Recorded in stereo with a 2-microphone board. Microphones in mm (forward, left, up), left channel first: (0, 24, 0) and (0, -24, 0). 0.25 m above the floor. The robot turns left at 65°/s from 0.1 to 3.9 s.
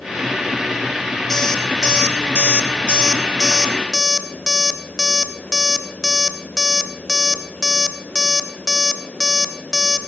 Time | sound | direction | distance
1.3 | an alarm clock | 5° left (ahead or behind) | 0.6 m